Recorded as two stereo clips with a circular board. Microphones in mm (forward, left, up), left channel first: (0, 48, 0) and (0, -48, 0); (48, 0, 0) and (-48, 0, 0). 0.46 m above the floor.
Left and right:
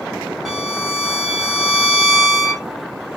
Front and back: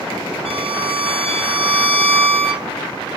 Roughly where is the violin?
Behind.